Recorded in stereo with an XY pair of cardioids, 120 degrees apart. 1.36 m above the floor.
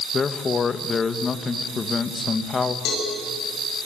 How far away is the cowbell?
About 8.5 m.